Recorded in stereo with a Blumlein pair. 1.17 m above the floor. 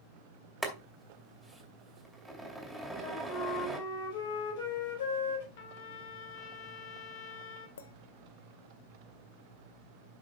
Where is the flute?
55° left, 5 m.